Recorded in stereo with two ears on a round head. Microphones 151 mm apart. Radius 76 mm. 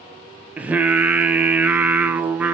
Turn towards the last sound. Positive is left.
turn(degrees=-10)  # may be behind; listen again after turning